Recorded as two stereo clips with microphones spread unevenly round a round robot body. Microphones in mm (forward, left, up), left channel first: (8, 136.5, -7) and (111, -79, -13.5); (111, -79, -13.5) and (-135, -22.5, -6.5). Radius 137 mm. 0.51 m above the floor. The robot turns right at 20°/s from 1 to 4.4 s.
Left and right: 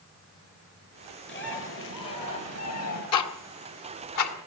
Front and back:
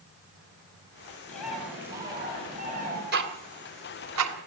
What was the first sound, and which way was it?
A bird, 75° left.